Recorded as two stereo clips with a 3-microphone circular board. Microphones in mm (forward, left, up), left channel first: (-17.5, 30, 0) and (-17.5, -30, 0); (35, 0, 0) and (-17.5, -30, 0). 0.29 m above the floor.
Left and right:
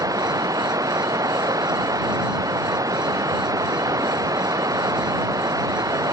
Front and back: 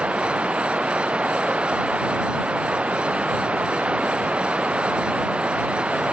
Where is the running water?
80° right.